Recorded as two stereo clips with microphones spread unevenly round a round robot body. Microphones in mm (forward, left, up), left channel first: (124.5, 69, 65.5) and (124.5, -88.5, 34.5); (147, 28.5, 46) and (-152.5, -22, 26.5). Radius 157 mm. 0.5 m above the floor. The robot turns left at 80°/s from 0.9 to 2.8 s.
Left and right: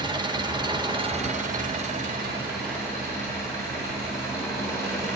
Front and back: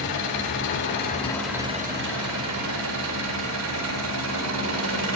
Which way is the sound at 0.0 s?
40° right.